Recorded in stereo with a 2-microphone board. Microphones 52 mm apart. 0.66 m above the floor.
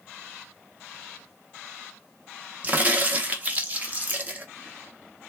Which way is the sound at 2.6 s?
30° right (ahead or behind).